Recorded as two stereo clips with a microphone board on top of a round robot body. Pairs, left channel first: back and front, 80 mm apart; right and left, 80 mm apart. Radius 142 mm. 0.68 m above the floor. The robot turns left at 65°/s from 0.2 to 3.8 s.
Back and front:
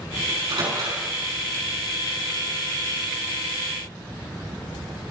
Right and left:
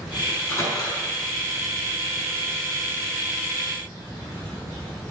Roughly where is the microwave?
Ahead.